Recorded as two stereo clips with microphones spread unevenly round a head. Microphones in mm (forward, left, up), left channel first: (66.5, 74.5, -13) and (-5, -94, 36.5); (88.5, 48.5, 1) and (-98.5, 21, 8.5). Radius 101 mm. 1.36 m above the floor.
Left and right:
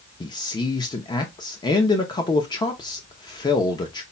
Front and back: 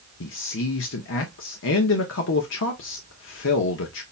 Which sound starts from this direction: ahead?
A man speaking, at 0.2 s.